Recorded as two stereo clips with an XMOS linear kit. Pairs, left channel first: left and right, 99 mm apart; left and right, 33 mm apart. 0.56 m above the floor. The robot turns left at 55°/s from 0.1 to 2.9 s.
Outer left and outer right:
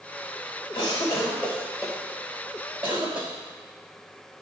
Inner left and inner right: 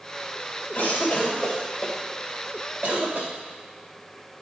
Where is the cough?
50° left (ahead or behind), 2.5 m; by 3.3 s 60° right (ahead or behind), 2.5 m.